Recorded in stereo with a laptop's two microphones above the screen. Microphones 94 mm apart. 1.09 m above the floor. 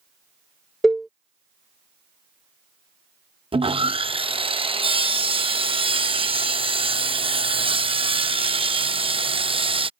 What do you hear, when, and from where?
0.8 s a cowbell: centre (ahead or behind)
3.5 s sawing: 75° right (ahead or behind)